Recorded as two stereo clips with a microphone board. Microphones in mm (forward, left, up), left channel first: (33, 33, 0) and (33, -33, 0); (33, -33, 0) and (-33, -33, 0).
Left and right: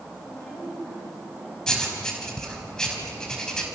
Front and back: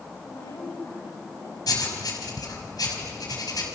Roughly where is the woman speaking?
Ahead left.